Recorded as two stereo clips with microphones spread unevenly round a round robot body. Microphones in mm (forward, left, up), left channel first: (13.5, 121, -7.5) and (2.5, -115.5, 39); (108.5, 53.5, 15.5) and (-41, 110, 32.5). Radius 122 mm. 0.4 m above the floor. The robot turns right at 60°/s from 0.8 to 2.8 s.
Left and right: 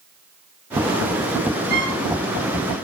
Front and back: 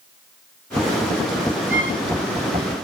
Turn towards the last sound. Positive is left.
turn(degrees=-80)